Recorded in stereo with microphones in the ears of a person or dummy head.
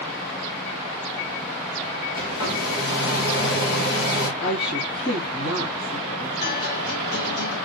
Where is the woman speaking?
60° left (ahead or behind), 2.5 m.